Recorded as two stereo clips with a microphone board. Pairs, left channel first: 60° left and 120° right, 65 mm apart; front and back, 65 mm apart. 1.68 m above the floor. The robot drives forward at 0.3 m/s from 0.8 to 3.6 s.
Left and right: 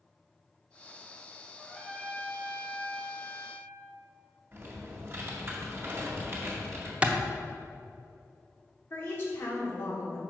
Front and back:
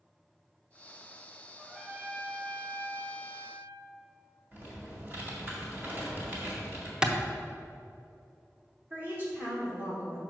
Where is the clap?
130° right, 0.8 m.